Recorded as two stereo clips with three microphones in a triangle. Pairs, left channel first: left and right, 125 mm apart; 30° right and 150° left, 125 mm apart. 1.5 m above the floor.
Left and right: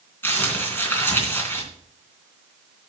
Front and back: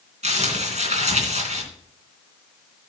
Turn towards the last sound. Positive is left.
turn(degrees=160)